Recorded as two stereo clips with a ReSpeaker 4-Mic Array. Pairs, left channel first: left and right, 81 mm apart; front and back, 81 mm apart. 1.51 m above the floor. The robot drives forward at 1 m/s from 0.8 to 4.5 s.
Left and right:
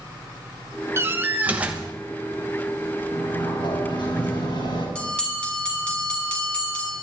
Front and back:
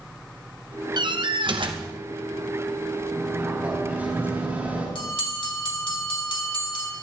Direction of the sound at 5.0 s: 10° left.